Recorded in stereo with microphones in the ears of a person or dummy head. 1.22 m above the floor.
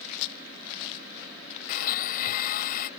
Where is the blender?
50° left (ahead or behind).